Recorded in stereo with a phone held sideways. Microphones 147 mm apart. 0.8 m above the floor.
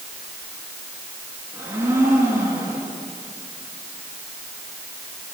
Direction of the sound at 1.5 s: 15° right (ahead or behind).